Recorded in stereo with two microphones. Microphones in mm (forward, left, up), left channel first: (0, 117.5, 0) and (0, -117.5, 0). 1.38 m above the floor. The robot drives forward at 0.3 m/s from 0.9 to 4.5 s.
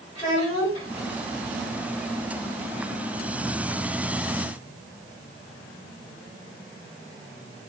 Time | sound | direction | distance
0.1 | a child speaking | 40° left (ahead or behind) | 2.5 m